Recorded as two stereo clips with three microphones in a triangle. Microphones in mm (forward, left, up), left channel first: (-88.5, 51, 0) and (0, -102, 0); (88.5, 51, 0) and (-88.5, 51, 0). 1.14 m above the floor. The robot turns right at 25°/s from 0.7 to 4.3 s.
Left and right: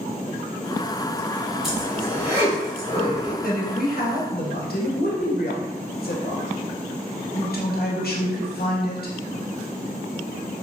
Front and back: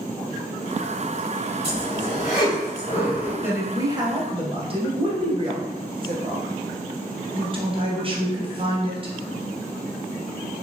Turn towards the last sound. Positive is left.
turn(degrees=125)